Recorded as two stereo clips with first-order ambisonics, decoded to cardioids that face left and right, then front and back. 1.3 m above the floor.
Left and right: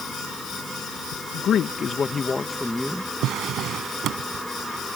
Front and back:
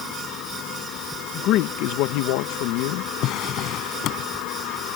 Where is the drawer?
40° right.